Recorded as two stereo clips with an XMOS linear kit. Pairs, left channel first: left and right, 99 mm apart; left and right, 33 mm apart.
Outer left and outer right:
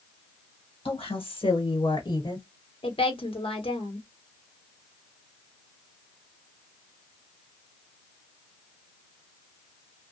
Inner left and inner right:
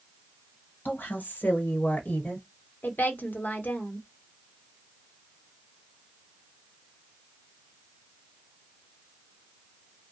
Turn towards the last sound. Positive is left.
turn(degrees=65)  # may be behind; listen again after turning